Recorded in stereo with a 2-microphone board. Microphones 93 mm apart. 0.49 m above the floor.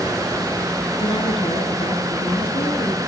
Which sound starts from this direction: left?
A woman speaking, at 1.0 s.